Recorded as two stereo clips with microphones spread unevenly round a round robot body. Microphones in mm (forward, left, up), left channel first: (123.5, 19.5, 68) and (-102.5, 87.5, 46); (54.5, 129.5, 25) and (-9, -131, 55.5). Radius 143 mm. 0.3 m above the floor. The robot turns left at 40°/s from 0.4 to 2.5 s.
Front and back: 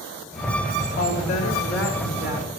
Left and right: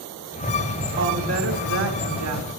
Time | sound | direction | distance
1.0 | a woman speaking | 65° right | 4.5 m